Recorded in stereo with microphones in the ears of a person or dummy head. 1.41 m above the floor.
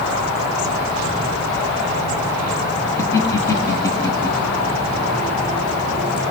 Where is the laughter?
15° left (ahead or behind), 1.5 m.